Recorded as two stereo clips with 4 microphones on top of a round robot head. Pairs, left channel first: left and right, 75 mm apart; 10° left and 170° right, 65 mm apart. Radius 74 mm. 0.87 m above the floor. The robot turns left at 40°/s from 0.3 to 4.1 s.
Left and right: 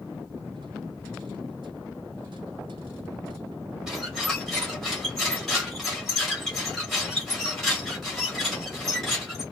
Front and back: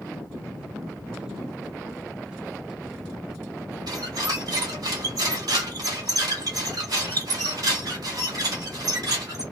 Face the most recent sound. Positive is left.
turn(degrees=175)